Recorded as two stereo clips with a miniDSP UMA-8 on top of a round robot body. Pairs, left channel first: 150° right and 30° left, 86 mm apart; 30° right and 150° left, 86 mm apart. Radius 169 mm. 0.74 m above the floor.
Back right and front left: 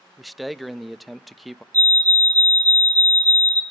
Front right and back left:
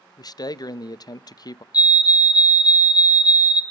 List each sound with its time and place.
0.2 s a man speaking: 60° right, 0.9 m
1.7 s a fire alarm: 5° right, 2.5 m